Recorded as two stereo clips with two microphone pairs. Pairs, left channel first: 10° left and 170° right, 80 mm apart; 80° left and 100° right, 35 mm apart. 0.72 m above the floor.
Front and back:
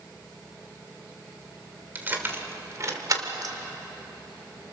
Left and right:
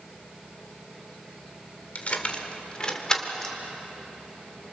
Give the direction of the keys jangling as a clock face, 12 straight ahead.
8 o'clock.